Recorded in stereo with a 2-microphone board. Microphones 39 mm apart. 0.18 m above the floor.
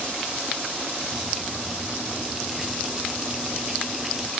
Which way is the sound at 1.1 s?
10° right (ahead or behind).